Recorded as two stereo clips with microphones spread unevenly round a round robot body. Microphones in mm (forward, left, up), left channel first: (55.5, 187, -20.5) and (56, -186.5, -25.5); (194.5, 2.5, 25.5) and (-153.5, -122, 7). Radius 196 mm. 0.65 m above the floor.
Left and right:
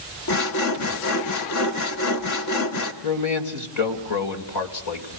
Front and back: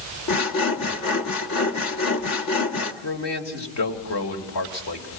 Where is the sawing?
60° left, 1.6 m.